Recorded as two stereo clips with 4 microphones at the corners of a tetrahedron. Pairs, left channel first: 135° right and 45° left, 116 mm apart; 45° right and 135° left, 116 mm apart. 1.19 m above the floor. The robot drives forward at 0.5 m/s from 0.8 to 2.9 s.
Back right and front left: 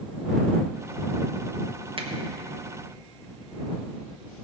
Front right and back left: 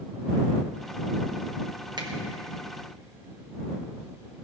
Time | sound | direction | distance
2.0 | a finger snap | 85° left | 1.4 m